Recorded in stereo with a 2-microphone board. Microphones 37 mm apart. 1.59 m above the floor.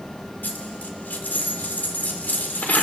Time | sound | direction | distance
0.4 | a dropped coin | 55° left (ahead or behind) | 2.5 m